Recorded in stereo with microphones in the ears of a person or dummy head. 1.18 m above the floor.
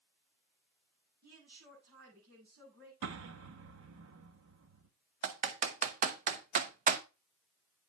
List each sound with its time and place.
1.2 s a woman speaking: 50° right (ahead or behind), 8 m
3.0 s an explosion: 85° right, 1.3 m
5.2 s typing on a keyboard: 45° right (ahead or behind), 0.8 m